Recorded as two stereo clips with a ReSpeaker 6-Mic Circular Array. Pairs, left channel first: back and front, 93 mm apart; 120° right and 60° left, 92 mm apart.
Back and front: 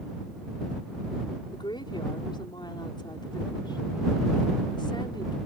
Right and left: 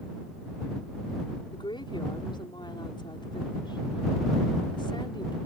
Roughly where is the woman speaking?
Behind right.